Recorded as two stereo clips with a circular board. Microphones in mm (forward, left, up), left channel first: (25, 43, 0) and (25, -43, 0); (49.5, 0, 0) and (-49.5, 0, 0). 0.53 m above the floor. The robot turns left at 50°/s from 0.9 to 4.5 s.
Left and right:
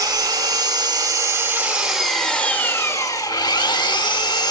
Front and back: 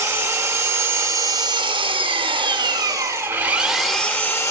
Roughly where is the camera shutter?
I don't hear a camera shutter.